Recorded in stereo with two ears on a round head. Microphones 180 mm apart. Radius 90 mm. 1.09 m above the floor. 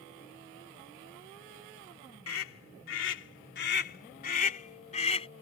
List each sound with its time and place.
2.3 s a scream: 80° left; by 5.3 s 30° left (ahead or behind)